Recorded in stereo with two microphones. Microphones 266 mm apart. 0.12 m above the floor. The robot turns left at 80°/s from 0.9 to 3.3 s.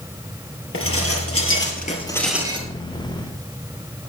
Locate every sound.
0.7 s dishes clattering: 110° left, 1.9 m; by 2.7 s 30° right, 1.9 m